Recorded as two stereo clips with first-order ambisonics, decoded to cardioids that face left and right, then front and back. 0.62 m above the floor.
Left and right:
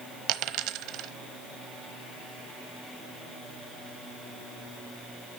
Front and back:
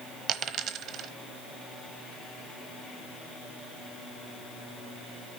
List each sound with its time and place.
0.3 s a dropped coin: 125° right, 1.0 m